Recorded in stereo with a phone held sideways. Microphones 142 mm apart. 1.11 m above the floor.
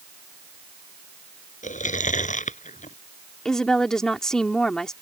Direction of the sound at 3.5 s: 5° left (ahead or behind).